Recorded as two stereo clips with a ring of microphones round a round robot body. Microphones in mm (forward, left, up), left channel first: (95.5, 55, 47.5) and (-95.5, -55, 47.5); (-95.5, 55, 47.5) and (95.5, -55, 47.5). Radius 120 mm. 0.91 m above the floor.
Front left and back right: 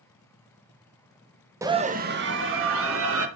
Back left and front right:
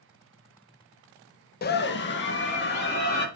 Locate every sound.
1.6 s a scream: 140° left, 0.9 m; by 3.3 s 165° right, 2.5 m